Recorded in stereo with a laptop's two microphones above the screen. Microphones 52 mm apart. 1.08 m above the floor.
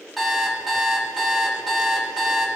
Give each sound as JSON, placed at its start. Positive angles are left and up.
{"t": 0.2, "sound": "an alarm clock", "side_deg": 0, "distance_m": 1.5}